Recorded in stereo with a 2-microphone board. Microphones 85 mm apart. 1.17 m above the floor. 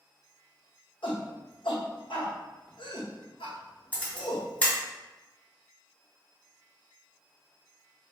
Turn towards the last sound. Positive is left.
turn(degrees=15)  # may be behind; listen again after turning